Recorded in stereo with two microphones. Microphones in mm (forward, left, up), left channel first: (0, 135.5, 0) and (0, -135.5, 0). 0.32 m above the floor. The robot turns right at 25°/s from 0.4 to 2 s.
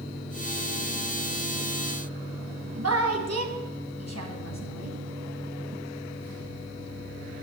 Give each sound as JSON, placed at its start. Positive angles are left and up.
{"t": 2.8, "sound": "a woman speaking", "side_deg": -65, "distance_m": 2.0}